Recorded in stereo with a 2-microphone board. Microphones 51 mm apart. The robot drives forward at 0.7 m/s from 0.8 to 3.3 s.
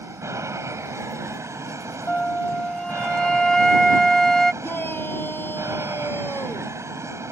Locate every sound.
0.0 s an aircraft: 70° right (ahead or behind); by 7.3 s 65° right (ahead or behind)
2.1 s a flute: 25° left (ahead or behind); by 4.5 s 10° left (ahead or behind)
4.6 s a shout: 40° left (ahead or behind)